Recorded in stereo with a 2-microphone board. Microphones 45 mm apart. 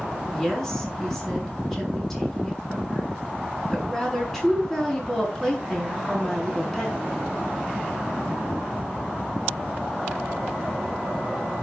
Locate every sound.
0.3 s a woman speaking: 5° left (ahead or behind), 5.5 m